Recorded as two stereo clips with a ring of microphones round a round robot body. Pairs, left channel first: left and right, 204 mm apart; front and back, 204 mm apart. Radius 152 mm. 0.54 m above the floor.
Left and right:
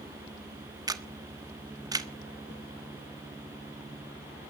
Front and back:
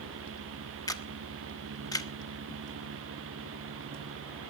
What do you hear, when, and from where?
0.9 s a camera shutter: 45° right, 1.3 m